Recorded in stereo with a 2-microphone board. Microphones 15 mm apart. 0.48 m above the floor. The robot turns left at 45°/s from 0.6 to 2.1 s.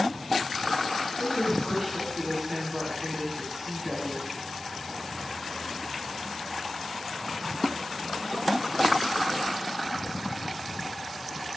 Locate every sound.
1.2 s a woman speaking: 10° left, 3.5 m; by 4.2 s 30° right, 3.5 m